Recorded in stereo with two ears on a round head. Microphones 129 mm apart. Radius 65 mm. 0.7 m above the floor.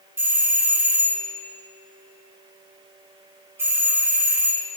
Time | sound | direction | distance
0.2 | a doorbell | 15° right (ahead or behind) | 1.2 m